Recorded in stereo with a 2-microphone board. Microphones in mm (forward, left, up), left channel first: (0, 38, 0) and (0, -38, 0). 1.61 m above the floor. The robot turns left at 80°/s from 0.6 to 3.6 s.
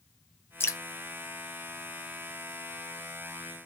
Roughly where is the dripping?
Left.